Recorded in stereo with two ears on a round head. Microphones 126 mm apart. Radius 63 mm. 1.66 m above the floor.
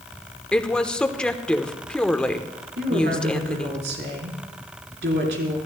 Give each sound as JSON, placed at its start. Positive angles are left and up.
{"t": 0.5, "sound": "a woman speaking", "side_deg": 5, "distance_m": 1.0}
{"t": 2.8, "sound": "a woman speaking", "side_deg": -85, "distance_m": 4.0}